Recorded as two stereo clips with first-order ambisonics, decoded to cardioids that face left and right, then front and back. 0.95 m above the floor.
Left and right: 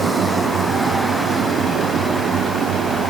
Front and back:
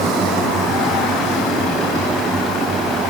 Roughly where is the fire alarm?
I don't hear a fire alarm.